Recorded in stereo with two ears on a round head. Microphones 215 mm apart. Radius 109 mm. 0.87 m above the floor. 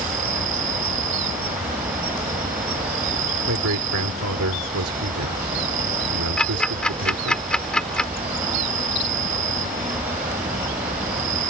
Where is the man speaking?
70° right (ahead or behind).